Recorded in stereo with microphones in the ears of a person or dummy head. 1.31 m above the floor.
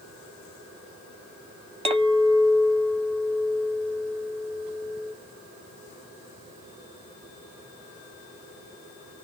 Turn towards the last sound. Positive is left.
turn(degrees=-30)  # may be behind; listen again after turning